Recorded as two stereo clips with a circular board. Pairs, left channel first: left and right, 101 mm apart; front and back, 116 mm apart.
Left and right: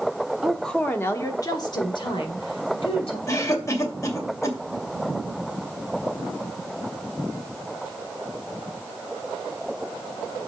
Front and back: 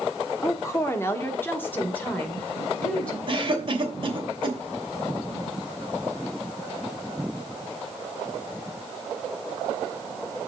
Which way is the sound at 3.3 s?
145° left.